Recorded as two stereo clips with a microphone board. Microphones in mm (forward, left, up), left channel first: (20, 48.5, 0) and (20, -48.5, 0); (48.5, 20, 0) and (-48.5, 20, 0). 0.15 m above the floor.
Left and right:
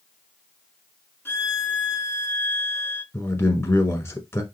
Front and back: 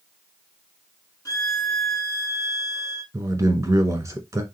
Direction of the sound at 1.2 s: 35° left.